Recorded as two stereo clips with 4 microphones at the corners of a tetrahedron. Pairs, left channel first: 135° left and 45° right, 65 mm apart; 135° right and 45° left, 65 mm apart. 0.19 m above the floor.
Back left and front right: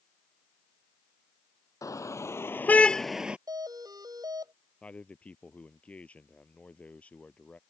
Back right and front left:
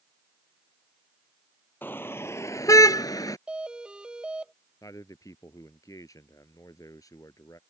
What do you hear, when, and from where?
1.8 s a car horn: 165° left; by 3.4 s 115° right
3.5 s a doorbell: 30° right
4.8 s a man speaking: 155° right